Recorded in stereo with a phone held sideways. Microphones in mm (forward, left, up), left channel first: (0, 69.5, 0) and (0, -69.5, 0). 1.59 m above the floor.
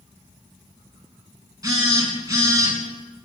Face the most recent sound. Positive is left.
turn(degrees=-25)  # may be behind; listen again after turning